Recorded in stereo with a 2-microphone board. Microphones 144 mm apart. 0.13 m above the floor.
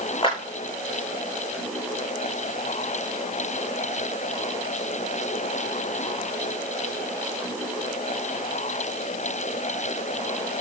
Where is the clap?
35° left (ahead or behind), 6.5 m.